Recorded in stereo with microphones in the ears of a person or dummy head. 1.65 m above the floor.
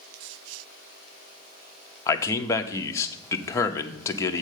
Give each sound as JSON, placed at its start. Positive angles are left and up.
{"t": 2.1, "sound": "a man speaking", "side_deg": 20, "distance_m": 0.7}